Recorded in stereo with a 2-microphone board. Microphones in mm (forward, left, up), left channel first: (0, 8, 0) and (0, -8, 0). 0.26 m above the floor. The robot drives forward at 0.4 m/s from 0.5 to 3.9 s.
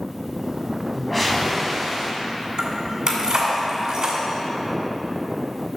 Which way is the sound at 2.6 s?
55° right (ahead or behind).